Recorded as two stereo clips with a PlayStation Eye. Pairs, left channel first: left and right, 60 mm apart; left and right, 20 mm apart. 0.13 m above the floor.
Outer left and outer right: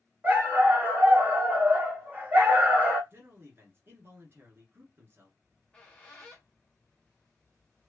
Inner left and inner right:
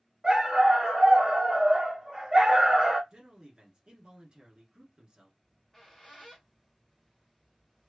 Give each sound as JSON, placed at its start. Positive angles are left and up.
{"t": 0.2, "sound": "a dog barking", "side_deg": -30, "distance_m": 1.6}
{"t": 3.1, "sound": "a man speaking", "side_deg": -40, "distance_m": 1.7}
{"t": 5.4, "sound": "a squeak", "side_deg": 15, "distance_m": 1.3}